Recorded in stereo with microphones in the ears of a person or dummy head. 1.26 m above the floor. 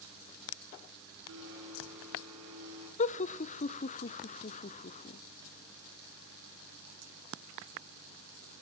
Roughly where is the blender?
Right.